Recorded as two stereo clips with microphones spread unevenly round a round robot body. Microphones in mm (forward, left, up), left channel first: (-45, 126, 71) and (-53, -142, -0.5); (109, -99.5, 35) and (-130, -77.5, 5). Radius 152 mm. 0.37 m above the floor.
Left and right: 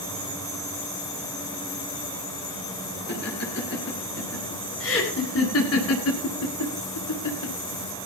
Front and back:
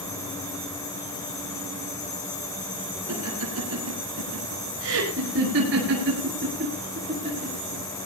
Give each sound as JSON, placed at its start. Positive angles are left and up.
{"t": 3.1, "sound": "laughter", "azimuth_deg": 140, "distance_m": 7.5}